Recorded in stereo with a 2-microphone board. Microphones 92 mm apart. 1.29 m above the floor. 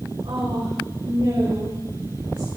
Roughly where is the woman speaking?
Right.